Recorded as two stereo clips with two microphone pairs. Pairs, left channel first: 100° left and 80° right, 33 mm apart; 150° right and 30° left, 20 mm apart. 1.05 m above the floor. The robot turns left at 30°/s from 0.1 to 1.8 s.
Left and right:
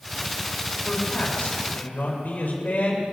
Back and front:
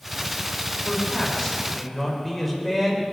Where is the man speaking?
150° left, 4 m; by 3.0 s 125° left, 4 m.